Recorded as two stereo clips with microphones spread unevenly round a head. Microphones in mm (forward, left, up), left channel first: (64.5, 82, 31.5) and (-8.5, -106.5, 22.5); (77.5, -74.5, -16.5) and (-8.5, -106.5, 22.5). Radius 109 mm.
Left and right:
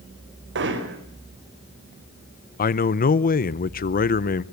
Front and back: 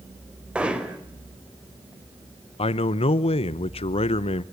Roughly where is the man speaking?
Ahead.